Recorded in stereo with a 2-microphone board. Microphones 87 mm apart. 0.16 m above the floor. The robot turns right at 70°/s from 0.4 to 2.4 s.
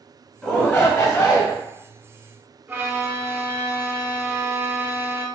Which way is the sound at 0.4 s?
5° right (ahead or behind).